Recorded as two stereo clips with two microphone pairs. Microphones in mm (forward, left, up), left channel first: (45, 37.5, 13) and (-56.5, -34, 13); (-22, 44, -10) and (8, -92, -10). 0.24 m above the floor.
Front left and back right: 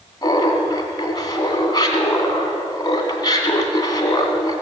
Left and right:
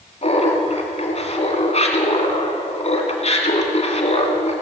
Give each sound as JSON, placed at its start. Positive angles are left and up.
{"t": 0.2, "sound": "laughter", "azimuth_deg": 85, "distance_m": 2.0}